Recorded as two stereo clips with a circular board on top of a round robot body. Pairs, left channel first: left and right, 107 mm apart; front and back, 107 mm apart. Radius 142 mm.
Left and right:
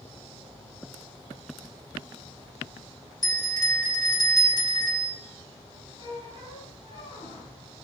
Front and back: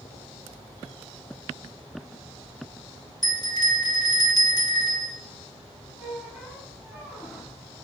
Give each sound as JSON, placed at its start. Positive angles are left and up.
{"t": 3.2, "sound": "a bell", "azimuth_deg": 45, "distance_m": 2.0}
{"t": 6.0, "sound": "a squeak", "azimuth_deg": 85, "distance_m": 5.0}